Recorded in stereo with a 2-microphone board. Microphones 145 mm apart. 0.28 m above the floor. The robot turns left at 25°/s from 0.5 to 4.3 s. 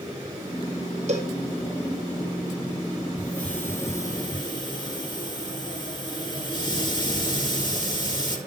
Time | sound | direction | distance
1.1 | a cowbell | 55° right (ahead or behind) | 3 m
3.2 | a hiss | 5° left (ahead or behind) | 4 m